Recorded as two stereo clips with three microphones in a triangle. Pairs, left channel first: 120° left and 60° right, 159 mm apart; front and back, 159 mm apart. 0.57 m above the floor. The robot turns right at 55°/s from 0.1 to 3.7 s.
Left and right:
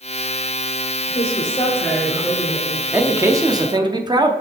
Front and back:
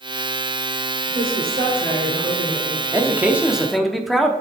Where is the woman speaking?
155° left, 1.4 m; by 3.9 s 60° right, 1.4 m.